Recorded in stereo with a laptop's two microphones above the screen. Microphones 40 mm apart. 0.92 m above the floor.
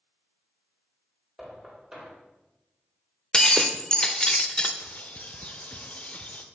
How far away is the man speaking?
No man speaking in this recording.